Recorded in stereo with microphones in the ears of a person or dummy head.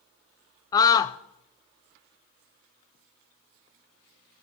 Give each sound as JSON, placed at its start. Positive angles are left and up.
{"t": 0.7, "sound": "a scream", "side_deg": 20, "distance_m": 0.5}